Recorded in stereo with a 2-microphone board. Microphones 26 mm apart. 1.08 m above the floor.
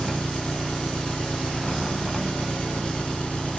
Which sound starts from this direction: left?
An engine running, at 0.0 s.